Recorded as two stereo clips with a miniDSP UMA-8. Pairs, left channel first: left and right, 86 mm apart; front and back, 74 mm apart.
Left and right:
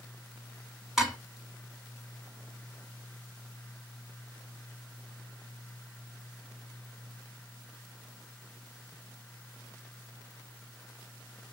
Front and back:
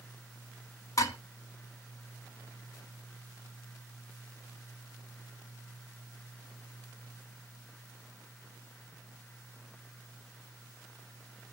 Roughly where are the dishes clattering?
Ahead.